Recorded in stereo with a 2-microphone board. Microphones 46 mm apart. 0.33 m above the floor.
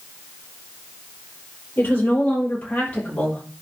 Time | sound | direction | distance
1.8 | a woman speaking | 40° left (ahead or behind) | 7 m